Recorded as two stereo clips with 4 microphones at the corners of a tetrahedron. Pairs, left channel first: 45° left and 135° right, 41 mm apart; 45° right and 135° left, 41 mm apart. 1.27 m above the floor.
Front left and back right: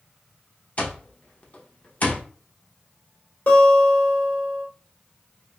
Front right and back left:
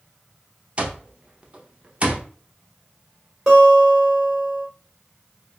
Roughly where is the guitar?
Ahead left.